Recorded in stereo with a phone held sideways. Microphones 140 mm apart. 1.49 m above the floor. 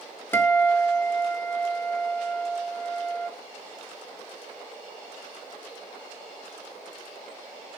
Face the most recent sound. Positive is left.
turn(degrees=15)  # may be behind; listen again after turning